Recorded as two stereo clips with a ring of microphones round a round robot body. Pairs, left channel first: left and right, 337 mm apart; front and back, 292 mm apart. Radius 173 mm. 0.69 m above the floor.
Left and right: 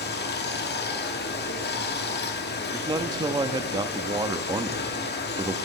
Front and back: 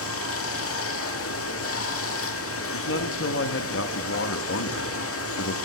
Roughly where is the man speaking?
Ahead.